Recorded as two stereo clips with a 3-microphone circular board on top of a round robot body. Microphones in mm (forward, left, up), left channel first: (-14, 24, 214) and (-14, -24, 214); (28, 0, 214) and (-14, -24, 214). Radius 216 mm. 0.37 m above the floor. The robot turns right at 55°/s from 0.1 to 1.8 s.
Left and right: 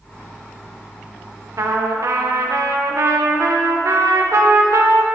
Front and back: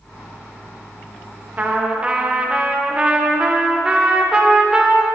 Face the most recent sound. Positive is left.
turn(degrees=-80)